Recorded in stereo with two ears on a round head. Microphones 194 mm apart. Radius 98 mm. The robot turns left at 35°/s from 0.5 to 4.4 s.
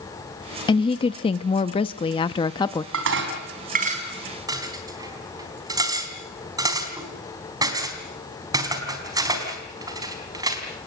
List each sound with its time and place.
0.7 s a woman speaking: 20° left (ahead or behind), 0.6 m; by 2.8 s 15° left (ahead or behind), 0.6 m
2.9 s dishes clattering: 70° right (ahead or behind), 4 m; by 10.9 s 20° right (ahead or behind), 4 m